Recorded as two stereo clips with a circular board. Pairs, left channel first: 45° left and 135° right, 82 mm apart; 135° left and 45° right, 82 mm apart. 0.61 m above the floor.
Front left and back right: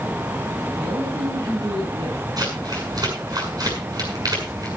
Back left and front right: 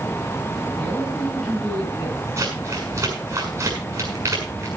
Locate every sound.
0.8 s a man speaking: 135° right, 4.5 m
2.4 s crumpling: 100° right, 6.5 m